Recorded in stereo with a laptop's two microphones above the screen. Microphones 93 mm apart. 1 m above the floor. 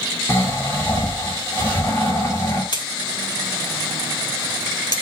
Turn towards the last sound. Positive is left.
turn(degrees=55)  # may be behind; listen again after turning